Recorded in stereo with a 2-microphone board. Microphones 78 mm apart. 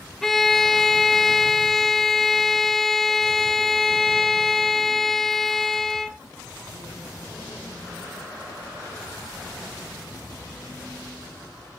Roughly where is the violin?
Centre.